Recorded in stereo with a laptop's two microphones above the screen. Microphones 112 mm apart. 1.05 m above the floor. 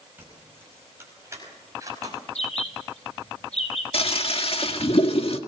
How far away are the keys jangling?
About 5 m.